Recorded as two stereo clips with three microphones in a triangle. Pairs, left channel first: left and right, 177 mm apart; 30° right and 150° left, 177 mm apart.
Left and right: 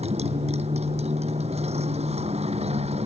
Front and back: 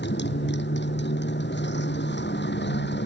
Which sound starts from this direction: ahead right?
A motorcycle, at 0.0 s.